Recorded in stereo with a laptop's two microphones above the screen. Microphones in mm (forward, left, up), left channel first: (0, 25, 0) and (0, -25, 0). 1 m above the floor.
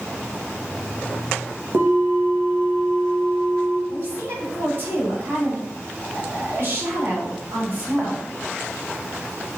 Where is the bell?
50° right (ahead or behind), 0.8 m.